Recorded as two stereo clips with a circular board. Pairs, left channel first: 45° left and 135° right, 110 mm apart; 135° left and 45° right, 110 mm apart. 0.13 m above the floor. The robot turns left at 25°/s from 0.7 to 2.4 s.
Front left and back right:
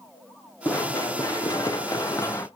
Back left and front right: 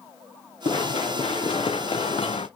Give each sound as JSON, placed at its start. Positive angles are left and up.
{"t": 0.7, "sound": "running footsteps", "azimuth_deg": 110, "distance_m": 2.5}